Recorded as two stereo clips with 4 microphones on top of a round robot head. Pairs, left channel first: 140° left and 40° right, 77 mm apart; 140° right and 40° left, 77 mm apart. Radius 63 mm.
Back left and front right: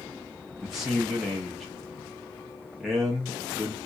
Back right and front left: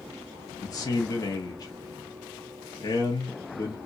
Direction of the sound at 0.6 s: 120° right.